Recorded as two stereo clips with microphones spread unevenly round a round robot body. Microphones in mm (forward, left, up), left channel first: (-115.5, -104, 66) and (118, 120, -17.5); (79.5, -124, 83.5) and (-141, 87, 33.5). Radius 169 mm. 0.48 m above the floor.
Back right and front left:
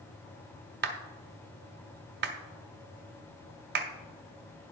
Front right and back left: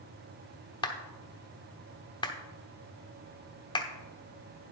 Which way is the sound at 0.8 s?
35° left.